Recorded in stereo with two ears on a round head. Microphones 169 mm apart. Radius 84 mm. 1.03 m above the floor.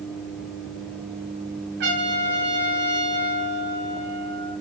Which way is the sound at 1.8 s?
65° right (ahead or behind).